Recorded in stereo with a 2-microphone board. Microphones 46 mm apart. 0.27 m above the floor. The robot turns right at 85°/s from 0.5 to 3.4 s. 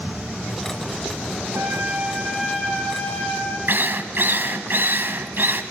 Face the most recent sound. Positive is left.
turn(degrees=-50)  # may be behind; listen again after turning